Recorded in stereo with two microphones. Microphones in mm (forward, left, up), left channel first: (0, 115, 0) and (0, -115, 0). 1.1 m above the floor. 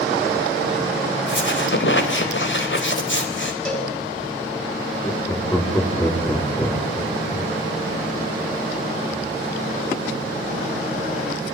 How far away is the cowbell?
About 6 m.